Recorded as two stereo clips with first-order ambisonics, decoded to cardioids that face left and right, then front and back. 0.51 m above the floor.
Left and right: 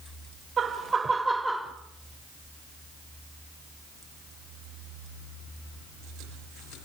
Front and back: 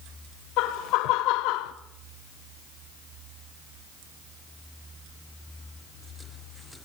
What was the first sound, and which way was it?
Laughter, 25° right.